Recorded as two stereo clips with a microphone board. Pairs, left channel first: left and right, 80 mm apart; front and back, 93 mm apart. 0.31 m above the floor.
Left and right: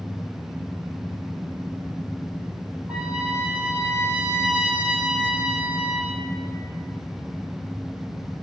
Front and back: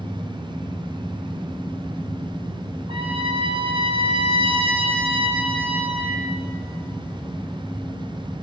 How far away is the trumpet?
About 3 m.